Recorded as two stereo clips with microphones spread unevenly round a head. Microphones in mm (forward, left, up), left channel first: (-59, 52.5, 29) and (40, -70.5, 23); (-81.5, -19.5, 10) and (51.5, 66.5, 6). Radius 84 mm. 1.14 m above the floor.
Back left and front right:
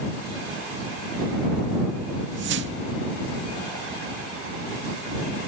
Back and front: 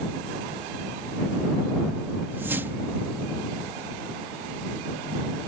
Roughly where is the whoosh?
Ahead right.